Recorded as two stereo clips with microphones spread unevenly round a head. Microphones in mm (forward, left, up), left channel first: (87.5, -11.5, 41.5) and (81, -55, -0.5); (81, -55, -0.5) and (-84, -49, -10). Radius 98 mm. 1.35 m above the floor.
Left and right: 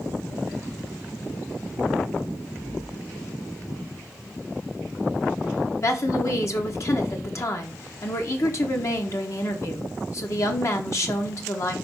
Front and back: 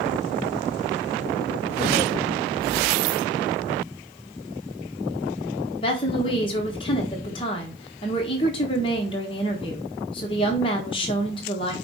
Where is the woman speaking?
65° left, 1.2 m.